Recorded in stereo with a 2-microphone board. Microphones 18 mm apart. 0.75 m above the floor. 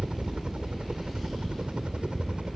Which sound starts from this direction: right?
A helicopter, at 0.0 s.